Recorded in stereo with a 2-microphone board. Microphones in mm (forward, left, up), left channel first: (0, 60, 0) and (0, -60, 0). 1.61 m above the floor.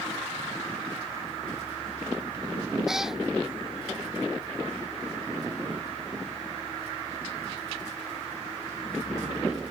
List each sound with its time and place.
2.9 s a cat meowing: 5° right (ahead or behind)